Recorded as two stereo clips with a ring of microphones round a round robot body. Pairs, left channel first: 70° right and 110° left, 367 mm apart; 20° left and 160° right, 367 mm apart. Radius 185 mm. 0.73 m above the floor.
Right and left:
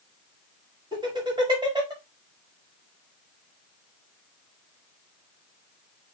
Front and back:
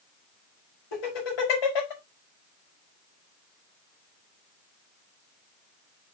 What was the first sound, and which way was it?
Laughter, 35° left.